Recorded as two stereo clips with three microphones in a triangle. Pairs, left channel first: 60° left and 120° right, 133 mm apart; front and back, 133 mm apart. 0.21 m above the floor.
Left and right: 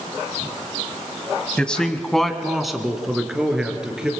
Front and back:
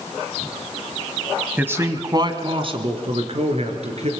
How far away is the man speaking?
About 1.3 m.